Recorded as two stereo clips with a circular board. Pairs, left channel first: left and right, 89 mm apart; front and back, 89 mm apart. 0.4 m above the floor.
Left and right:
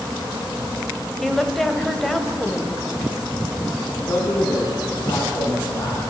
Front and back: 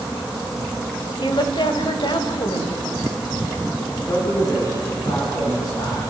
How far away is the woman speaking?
About 2.0 m.